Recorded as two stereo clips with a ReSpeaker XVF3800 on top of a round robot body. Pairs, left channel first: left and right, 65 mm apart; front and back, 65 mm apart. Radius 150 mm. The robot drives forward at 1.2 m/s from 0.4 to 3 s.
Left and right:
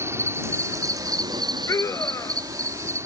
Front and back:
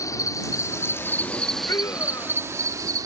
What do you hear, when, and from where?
0.0 s an insect: 40° right; by 3.1 s 140° right
1.7 s a scream: 45° left; by 2.5 s 50° left